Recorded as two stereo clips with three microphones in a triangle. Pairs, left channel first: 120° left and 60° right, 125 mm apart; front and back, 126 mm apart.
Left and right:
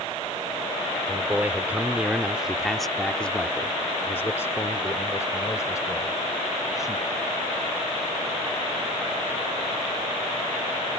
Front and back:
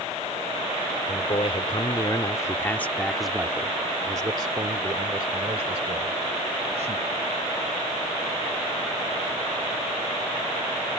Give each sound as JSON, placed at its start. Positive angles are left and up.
{"t": 1.1, "sound": "a man speaking", "azimuth_deg": 10}